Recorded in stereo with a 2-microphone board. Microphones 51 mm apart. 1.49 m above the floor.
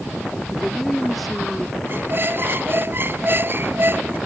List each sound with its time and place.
0.5 s a woman speaking: centre (ahead or behind)
1.9 s a squeak: 45° right (ahead or behind)